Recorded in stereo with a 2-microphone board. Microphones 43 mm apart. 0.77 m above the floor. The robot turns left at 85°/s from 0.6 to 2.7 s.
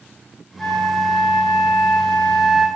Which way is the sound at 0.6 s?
170° left.